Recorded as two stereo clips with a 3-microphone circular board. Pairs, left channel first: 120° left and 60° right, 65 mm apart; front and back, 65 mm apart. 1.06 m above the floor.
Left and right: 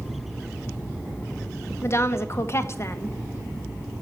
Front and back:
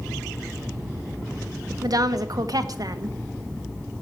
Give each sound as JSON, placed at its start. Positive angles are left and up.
{"t": 1.8, "sound": "a woman speaking", "azimuth_deg": 165, "distance_m": 1.1}